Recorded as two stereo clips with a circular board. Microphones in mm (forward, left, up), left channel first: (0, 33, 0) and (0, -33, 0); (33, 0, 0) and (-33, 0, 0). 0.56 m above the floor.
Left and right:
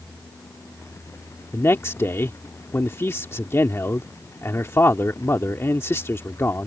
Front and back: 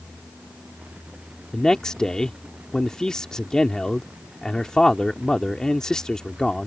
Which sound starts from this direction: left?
A man speaking, at 1.5 s.